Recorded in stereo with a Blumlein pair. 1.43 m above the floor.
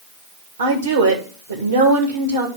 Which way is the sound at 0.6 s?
70° right.